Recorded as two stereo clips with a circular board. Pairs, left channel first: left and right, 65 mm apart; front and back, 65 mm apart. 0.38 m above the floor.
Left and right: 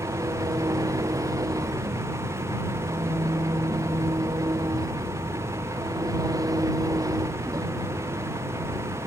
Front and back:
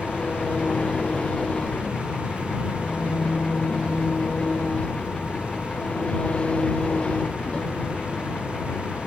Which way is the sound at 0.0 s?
70° right.